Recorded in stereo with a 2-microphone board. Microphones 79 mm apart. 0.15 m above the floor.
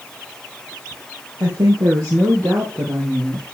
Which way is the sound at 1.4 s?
55° right (ahead or behind).